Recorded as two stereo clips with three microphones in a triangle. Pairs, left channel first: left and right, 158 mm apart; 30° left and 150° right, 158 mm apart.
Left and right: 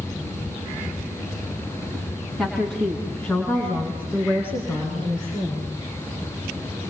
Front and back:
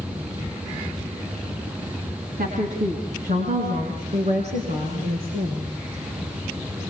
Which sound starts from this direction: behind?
A woman speaking, at 2.4 s.